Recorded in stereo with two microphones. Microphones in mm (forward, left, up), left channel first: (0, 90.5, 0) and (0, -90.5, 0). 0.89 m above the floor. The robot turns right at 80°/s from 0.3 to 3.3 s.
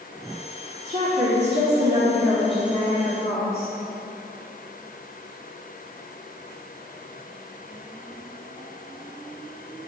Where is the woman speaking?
130° right, 1.8 m; by 3.7 s 65° left, 1.8 m.